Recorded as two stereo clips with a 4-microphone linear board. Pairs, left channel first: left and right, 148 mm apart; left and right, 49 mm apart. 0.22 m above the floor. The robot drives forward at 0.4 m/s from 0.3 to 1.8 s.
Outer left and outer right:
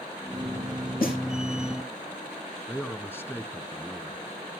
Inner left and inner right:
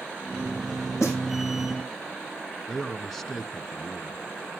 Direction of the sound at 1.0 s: 80° left.